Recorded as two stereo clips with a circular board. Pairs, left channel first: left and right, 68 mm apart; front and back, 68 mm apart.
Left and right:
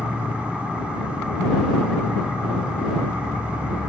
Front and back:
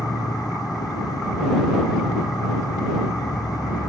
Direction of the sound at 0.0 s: 15° right.